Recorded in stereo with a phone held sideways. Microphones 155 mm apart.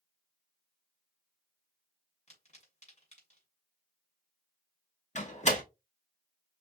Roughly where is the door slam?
Left.